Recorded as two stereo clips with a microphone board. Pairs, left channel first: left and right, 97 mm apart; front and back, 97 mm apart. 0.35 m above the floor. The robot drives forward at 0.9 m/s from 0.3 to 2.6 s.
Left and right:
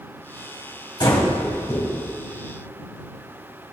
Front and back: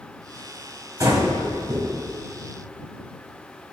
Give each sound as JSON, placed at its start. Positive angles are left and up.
{"t": 1.0, "sound": "breathing", "azimuth_deg": 125, "distance_m": 2.0}